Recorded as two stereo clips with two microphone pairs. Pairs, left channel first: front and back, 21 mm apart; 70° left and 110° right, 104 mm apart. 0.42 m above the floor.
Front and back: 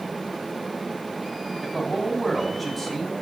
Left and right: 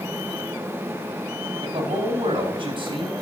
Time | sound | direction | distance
1.6 | a man speaking | 80° right | 3 m